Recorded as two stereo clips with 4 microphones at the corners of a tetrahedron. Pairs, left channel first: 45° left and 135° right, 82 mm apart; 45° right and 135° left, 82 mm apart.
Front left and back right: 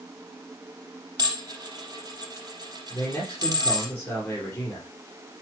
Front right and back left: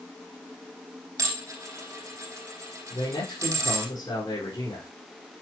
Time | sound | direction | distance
1.2 | dishes clattering | 175° right | 4 m
2.9 | a man speaking | 25° right | 5 m